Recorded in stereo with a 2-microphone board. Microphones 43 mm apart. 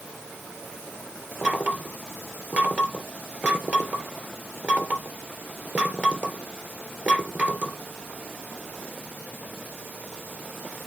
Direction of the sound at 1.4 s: 35° right (ahead or behind).